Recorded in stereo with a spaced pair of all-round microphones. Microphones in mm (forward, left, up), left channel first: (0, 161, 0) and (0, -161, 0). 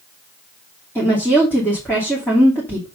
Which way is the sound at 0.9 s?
5° left (ahead or behind).